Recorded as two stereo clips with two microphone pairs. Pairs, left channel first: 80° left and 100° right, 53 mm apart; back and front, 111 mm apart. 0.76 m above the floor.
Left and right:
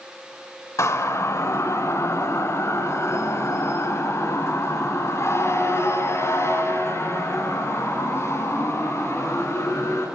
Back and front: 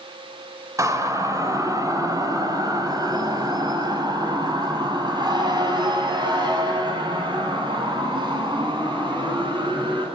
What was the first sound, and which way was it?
A siren, 60° left.